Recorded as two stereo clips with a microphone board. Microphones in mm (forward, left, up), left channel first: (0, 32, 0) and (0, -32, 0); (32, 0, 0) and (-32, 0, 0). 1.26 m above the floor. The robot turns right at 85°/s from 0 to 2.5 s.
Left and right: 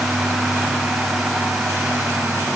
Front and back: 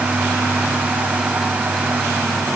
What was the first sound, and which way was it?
Only background noise.